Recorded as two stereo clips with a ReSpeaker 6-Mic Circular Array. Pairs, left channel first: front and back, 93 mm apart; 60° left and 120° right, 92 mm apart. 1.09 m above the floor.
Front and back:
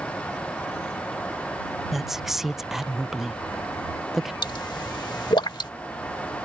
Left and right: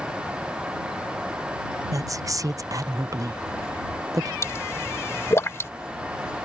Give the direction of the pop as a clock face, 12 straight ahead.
12 o'clock.